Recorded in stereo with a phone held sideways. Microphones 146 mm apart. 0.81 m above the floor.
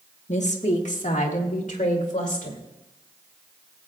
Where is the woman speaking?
55° left (ahead or behind), 1.3 m; by 2.6 s 60° left (ahead or behind), 3 m.